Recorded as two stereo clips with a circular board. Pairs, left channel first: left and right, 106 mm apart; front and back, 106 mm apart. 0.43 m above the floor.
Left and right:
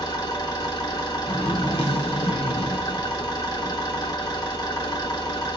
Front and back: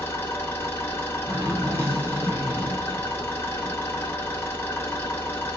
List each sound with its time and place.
0.0 s an engine running: 60° left, 1.2 m
1.3 s a zipper: 115° left, 0.9 m